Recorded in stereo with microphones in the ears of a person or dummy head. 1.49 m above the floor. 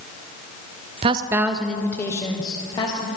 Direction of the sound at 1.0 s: 30° right (ahead or behind).